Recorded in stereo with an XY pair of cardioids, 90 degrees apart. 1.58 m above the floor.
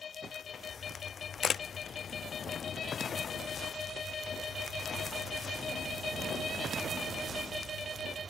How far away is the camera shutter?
About 0.5 m.